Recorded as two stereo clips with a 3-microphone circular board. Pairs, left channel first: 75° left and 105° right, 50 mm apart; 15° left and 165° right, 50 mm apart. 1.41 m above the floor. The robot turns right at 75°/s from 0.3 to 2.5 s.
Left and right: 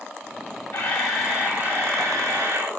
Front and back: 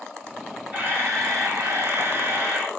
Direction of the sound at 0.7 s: 135° left.